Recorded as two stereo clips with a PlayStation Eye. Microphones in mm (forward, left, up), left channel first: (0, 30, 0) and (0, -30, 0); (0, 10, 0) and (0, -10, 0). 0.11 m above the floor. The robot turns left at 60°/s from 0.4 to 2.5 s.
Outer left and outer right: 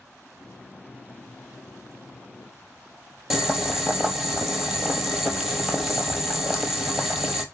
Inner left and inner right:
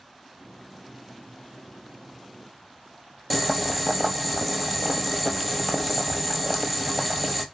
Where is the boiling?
Centre (ahead or behind), 0.9 m.